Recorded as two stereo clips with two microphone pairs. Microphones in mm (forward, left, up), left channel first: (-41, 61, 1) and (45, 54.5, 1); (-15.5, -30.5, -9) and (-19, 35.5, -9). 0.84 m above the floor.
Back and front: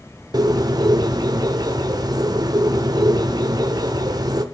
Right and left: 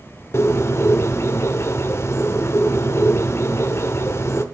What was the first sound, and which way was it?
A bird, 40° right.